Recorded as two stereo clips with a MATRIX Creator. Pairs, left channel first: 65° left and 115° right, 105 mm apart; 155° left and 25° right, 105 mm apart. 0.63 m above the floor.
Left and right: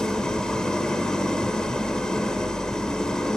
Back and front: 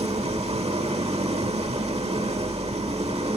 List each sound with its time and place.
0.0 s an engine running: 15° right, 1.2 m